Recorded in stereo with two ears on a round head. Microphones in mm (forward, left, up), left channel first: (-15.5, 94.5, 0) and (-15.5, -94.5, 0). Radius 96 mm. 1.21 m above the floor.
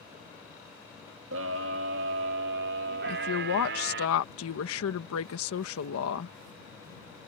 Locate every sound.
1.3 s a scream: 70° right (ahead or behind); by 4.1 s 60° right (ahead or behind)
3.1 s a woman speaking: 75° left (ahead or behind)